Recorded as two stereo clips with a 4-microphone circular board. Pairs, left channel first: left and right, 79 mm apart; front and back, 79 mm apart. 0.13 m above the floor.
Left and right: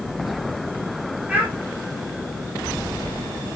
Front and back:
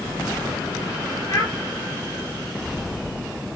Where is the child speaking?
20° right, 1.5 m.